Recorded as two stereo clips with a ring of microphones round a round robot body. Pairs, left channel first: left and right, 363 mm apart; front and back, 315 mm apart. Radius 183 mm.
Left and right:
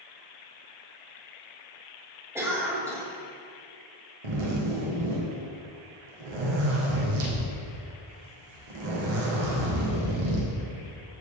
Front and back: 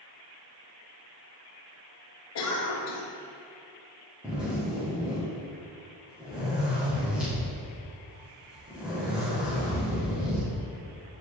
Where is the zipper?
95° right, 3.5 m.